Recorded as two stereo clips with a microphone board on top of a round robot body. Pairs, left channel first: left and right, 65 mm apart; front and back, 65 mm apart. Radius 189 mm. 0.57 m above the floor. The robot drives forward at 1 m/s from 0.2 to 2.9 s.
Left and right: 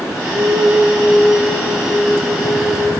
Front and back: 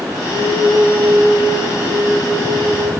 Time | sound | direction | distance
0.3 | a flute | 135° left | 2.5 m